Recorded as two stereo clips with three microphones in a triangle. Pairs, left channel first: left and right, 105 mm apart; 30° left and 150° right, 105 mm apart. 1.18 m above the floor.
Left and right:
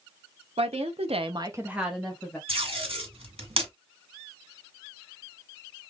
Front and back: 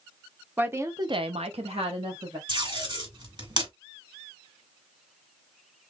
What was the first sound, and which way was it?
A woman speaking, 75° right.